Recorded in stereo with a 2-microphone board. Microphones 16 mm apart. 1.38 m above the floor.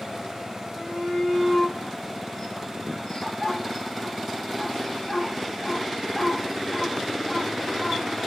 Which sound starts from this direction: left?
A shout, at 0.7 s.